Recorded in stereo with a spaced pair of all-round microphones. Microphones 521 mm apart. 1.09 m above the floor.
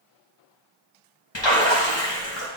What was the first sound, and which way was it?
A splash, 55° left (ahead or behind).